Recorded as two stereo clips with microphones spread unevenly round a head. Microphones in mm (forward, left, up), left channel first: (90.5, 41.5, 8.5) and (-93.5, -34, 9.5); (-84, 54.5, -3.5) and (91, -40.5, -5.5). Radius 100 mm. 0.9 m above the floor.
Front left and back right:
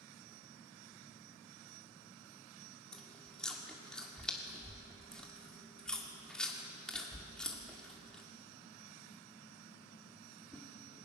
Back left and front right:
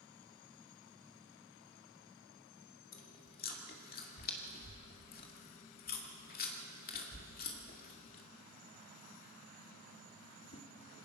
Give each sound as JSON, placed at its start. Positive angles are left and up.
{"t": 2.9, "sound": "chewing", "azimuth_deg": 110, "distance_m": 2.5}